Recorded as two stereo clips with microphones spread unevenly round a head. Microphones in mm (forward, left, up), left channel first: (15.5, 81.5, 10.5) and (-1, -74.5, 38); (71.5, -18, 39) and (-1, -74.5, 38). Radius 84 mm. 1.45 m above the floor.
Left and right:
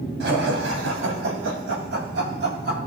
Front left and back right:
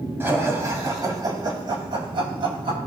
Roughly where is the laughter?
Right.